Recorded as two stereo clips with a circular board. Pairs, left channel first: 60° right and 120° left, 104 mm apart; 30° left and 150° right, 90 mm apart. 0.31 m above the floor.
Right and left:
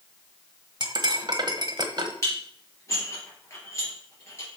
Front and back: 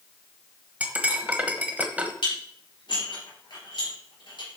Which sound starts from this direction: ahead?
Dishes clattering, at 2.2 s.